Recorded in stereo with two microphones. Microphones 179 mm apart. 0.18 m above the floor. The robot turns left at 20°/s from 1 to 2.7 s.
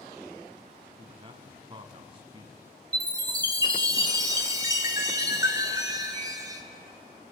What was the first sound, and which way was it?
A man speaking, 30° right (ahead or behind).